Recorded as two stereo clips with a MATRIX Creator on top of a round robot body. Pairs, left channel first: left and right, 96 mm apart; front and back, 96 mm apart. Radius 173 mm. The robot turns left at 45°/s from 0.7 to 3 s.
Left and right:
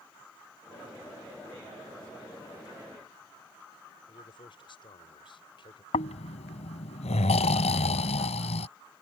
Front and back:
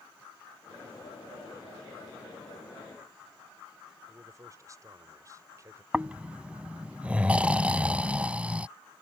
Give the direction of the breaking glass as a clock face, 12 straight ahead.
I don't hear breaking glass.